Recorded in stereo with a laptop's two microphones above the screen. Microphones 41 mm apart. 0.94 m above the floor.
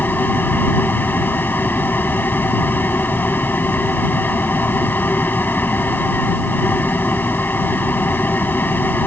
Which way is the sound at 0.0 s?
60° left (ahead or behind).